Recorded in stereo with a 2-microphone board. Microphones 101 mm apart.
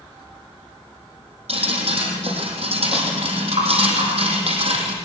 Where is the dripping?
70° right (ahead or behind), 6 m.